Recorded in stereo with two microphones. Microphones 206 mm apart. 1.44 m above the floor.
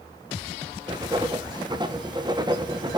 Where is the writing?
20° right (ahead or behind), 0.5 m.